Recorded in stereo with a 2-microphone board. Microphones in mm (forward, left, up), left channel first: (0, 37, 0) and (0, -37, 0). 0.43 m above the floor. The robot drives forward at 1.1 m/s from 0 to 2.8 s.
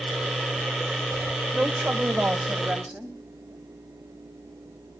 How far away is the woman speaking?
About 1.9 m.